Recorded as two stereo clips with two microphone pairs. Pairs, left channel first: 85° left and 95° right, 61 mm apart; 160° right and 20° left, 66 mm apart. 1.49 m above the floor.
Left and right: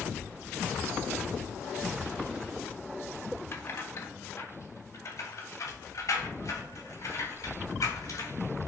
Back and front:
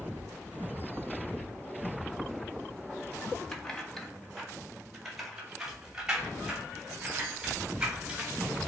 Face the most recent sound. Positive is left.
turn(degrees=100)